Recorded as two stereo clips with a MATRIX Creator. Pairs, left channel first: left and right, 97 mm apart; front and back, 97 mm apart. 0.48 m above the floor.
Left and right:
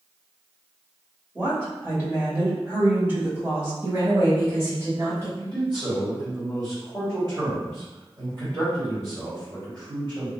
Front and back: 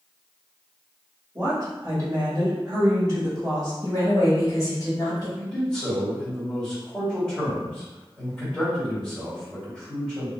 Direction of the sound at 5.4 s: 80° right.